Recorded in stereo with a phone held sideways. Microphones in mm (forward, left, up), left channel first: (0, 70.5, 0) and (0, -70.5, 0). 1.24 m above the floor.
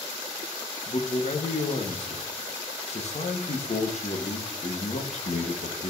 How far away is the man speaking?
About 1.1 m.